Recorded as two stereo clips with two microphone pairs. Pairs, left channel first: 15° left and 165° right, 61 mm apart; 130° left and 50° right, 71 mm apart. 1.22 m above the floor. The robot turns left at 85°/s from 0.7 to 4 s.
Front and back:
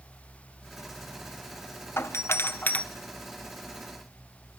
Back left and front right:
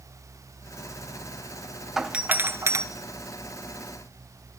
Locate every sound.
2.0 s a doorbell: 35° left, 1.5 m; by 2.9 s 40° right, 1.5 m